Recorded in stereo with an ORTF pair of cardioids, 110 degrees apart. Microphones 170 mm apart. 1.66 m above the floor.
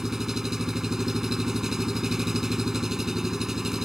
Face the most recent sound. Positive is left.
turn(degrees=0)